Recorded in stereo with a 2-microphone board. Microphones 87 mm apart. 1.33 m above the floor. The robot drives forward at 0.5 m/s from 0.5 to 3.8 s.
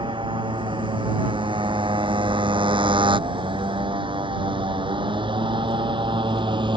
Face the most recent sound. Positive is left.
turn(degrees=-65)  # may be behind; listen again after turning